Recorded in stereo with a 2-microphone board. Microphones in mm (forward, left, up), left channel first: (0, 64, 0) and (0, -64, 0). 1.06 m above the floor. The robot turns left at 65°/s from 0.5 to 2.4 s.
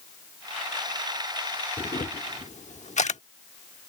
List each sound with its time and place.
1.8 s a camera shutter: 45° left (ahead or behind); by 3.2 s 65° left (ahead or behind)